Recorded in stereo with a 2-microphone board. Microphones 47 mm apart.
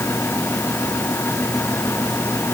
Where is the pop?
I don't hear a pop.